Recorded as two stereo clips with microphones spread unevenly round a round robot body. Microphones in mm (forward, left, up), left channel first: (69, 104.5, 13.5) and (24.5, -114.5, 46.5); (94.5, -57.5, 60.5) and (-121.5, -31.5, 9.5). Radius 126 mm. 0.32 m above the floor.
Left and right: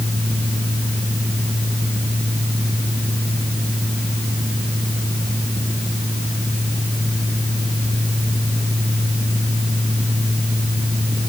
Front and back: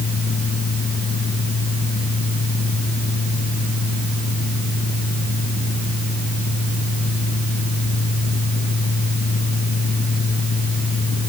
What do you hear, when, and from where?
Only background noise.